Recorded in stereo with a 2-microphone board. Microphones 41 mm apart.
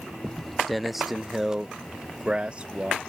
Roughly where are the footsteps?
Centre.